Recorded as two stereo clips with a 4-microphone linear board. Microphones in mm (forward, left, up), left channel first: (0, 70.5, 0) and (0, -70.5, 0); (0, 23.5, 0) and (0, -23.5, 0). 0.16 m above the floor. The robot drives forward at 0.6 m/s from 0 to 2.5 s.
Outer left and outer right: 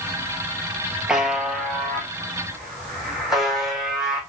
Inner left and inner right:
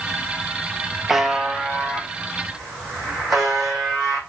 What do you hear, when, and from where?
1.1 s a buzzer: 5° right (ahead or behind), 0.5 m; by 4.2 s centre (ahead or behind), 1.3 m